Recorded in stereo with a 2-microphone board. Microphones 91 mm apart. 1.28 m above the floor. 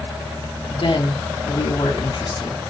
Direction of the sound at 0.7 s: 65° left (ahead or behind).